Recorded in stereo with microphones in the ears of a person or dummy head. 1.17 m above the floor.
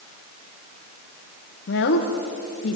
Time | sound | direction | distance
1.7 | a woman speaking | 60° left (ahead or behind) | 0.8 m